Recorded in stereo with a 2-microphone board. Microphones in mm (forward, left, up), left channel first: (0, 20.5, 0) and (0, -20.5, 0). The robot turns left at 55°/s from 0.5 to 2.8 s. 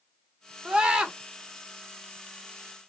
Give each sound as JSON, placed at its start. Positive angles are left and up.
{"t": 0.7, "sound": "a scream", "side_deg": -25, "distance_m": 0.9}